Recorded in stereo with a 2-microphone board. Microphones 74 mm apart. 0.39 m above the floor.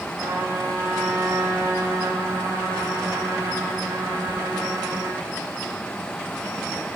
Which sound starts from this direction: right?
A trumpet, at 0.2 s.